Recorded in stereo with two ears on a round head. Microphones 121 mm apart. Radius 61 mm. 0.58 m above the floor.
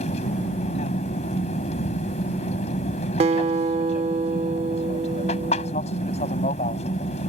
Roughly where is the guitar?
Right.